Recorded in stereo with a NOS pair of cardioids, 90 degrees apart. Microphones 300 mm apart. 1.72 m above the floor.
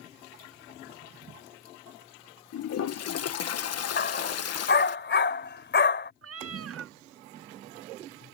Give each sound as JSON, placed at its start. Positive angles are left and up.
{"t": 2.5, "sound": "a toilet flushing", "azimuth_deg": 55}
{"t": 4.0, "sound": "a dog barking", "azimuth_deg": 40}
{"t": 6.2, "sound": "a cat meowing", "azimuth_deg": -50}